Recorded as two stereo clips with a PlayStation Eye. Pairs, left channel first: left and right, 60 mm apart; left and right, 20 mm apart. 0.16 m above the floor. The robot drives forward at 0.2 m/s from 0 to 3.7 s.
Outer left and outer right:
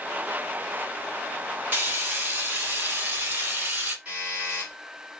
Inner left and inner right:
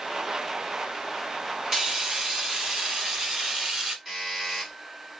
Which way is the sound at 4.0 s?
25° right (ahead or behind).